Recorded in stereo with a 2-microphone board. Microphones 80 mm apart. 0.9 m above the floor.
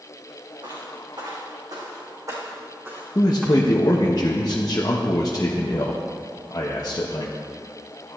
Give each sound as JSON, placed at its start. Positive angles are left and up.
{"t": 0.6, "sound": "footsteps", "side_deg": -60, "distance_m": 4.5}
{"t": 3.1, "sound": "a man speaking", "side_deg": 45, "distance_m": 0.9}